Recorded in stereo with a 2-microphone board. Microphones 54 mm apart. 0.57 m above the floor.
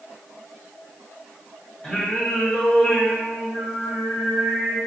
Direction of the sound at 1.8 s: 25° left (ahead or behind).